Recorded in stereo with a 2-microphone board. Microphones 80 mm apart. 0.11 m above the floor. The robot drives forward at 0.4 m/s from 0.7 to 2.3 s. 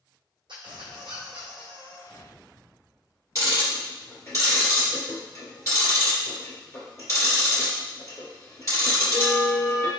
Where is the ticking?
40° left (ahead or behind), 1.9 m.